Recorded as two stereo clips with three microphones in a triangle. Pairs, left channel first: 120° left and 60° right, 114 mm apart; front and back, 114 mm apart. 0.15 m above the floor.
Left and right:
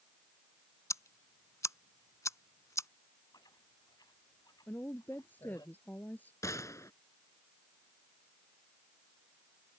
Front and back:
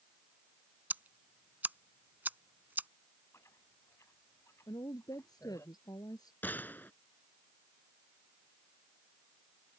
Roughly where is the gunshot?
Left.